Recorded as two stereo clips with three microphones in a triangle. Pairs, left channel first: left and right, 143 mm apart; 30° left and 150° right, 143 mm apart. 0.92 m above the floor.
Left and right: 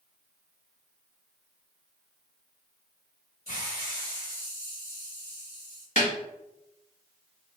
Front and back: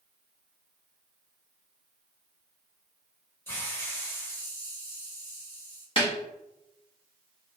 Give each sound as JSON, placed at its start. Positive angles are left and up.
{"t": 3.5, "sound": "a hiss", "azimuth_deg": 105, "distance_m": 2.5}
{"t": 6.0, "sound": "a snare drum", "azimuth_deg": 75, "distance_m": 1.6}